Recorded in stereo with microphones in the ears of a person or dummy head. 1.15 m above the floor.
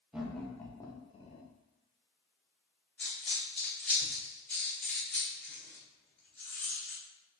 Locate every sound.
0.1 s laughter: 10° right (ahead or behind), 0.9 m; by 1.5 s 35° left (ahead or behind), 1.1 m
3.0 s a dropped coin: centre (ahead or behind), 1.7 m